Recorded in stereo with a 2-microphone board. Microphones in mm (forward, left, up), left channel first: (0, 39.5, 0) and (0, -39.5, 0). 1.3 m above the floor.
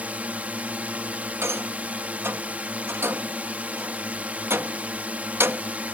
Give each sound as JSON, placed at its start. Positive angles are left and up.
{"t": 0.0, "sound": "a drone", "side_deg": -20}
{"t": 1.4, "sound": "a rattle", "side_deg": -30}